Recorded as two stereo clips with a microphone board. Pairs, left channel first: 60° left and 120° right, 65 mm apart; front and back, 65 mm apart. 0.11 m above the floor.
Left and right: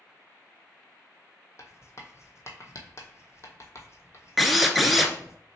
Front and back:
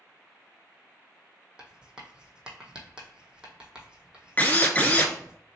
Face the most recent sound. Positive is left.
turn(degrees=-35)